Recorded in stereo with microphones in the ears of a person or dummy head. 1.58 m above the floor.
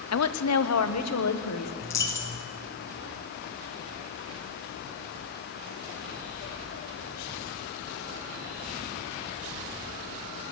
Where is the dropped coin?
15° left (ahead or behind), 1.7 m.